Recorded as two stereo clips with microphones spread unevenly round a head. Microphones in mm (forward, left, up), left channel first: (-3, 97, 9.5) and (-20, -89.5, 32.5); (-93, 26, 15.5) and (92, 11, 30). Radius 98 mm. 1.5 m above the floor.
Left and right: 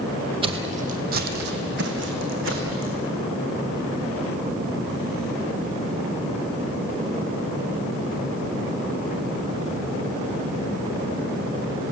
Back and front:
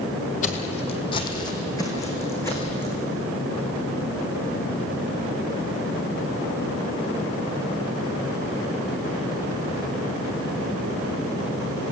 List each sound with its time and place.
0.4 s footsteps: 140° right, 2 m; by 3.0 s 105° right, 5 m